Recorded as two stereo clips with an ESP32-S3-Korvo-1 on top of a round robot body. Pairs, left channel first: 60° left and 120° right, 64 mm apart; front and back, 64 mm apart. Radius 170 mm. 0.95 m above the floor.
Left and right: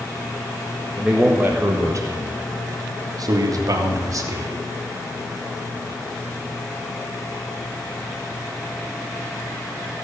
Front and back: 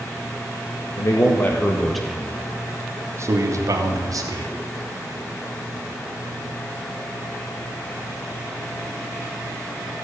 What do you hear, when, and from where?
1.0 s a man speaking: 45° right, 1.9 m; by 4.5 s 155° right, 3.5 m